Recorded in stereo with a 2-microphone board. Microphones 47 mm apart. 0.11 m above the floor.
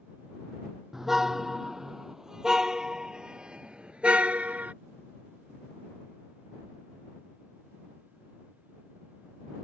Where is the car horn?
5° right (ahead or behind); by 4.7 s 30° right (ahead or behind).